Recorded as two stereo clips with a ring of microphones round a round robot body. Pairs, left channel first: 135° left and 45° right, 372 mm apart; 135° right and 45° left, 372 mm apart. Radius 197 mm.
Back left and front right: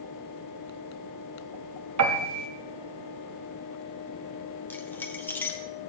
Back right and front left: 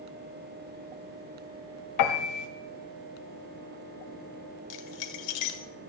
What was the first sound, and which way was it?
A piano, 95° right.